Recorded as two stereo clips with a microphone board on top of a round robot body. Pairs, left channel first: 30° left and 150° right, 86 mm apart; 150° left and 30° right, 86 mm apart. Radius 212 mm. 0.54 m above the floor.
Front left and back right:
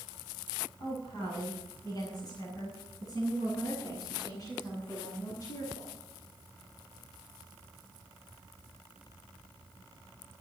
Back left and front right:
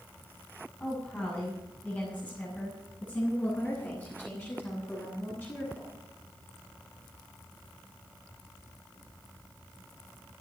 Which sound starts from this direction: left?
A woman speaking, at 0.8 s.